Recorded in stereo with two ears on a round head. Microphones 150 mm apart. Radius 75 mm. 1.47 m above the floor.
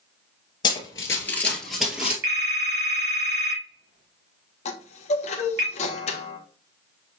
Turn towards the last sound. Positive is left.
turn(degrees=40)  # may be behind; listen again after turning